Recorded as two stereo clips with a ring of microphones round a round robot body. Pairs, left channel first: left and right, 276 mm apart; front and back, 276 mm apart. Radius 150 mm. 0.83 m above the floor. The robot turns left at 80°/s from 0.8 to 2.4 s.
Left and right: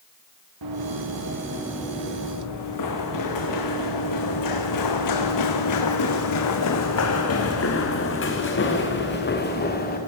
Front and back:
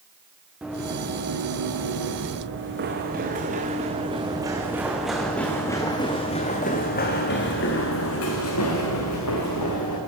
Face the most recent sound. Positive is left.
turn(degrees=35)